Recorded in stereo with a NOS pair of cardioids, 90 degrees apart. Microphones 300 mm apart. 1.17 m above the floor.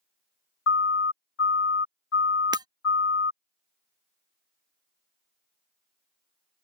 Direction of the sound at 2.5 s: 15° right.